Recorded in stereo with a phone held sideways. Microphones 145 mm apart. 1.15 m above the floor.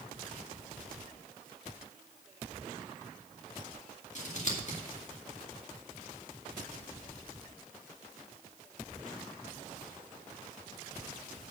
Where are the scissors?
50° left (ahead or behind), 2 m.